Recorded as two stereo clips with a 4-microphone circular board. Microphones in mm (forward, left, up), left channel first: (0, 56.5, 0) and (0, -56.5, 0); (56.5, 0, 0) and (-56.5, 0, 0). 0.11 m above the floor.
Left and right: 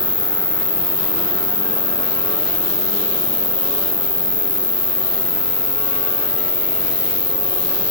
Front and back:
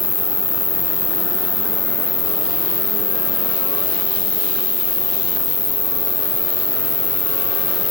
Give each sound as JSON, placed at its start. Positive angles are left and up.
{"t": 0.0, "sound": "an insect", "azimuth_deg": 65, "distance_m": 1.2}